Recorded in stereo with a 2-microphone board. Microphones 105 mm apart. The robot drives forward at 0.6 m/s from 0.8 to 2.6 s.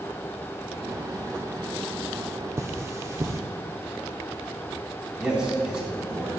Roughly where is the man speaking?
Centre.